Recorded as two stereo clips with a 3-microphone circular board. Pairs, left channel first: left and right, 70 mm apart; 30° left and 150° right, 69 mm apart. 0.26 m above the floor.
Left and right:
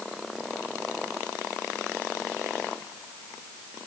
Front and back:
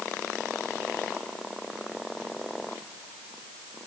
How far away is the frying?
I don't hear frying.